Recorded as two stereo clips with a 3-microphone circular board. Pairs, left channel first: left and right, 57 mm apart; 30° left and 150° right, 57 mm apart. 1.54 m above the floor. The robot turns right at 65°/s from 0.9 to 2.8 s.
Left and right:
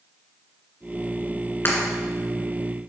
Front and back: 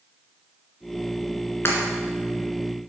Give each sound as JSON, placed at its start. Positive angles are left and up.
{"t": 1.6, "sound": "breaking glass", "azimuth_deg": 55, "distance_m": 2.0}